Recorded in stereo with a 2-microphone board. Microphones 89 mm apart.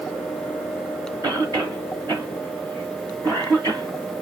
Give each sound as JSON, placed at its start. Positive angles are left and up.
{"t": 1.2, "sound": "a cough", "side_deg": -40, "distance_m": 1.7}